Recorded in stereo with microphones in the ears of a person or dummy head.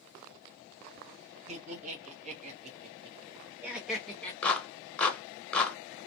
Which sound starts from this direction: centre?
A clap, at 4.4 s.